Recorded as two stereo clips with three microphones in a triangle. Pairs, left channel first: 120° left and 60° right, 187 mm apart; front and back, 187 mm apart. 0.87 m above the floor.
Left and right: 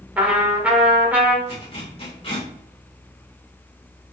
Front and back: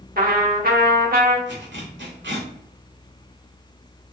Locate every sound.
0.2 s a trumpet: 140° right, 1.1 m
1.5 s a zipper: straight behind, 2 m